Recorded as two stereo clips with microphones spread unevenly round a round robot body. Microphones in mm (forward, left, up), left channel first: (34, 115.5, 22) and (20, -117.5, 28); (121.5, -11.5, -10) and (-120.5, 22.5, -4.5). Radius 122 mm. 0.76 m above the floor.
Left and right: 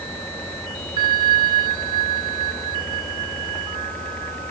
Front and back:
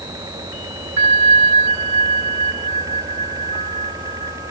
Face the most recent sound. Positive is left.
turn(degrees=-165)